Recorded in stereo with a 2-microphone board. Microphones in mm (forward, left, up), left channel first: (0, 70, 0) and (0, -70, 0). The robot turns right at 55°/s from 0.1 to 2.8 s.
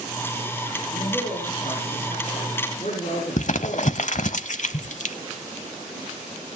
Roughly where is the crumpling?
Left.